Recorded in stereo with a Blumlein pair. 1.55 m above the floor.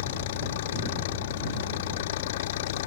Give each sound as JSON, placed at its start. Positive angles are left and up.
{"t": 0.0, "sound": "an engine running", "azimuth_deg": 55}